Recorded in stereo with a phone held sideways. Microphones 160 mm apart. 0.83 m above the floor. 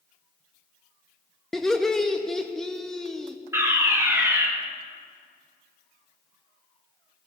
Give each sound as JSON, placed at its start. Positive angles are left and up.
{"t": 1.5, "sound": "laughter", "side_deg": 5, "distance_m": 0.5}
{"t": 3.5, "sound": "a fire alarm", "side_deg": -15, "distance_m": 1.3}